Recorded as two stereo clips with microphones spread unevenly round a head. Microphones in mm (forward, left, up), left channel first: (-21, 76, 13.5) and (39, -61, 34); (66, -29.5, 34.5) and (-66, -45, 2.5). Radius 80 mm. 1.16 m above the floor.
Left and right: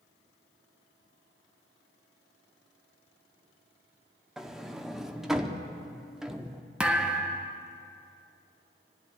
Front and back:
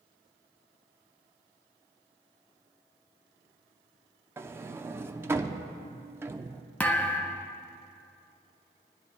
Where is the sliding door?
165° right, 0.6 m.